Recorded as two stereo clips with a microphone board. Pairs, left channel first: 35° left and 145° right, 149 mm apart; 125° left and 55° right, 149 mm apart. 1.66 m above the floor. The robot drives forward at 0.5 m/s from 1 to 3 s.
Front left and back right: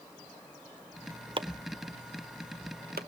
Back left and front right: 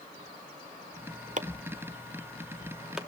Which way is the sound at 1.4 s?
90° right.